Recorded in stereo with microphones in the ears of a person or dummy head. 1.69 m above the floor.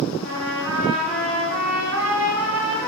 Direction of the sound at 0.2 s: 70° right (ahead or behind).